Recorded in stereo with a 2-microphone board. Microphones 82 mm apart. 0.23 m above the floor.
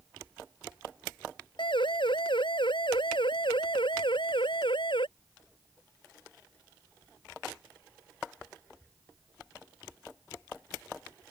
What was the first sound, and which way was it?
A siren, 75° left (ahead or behind).